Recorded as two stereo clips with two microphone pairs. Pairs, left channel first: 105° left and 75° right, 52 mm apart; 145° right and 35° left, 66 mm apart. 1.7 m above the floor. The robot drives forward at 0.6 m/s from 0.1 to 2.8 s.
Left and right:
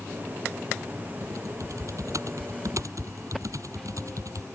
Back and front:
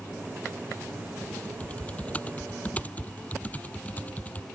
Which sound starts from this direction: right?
Typing on a keyboard, at 1.2 s.